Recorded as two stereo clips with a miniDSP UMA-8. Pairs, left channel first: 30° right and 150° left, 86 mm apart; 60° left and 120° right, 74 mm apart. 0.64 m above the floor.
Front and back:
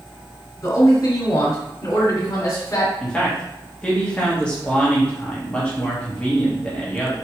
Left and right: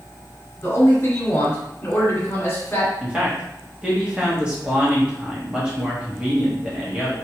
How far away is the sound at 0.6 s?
About 1.7 m.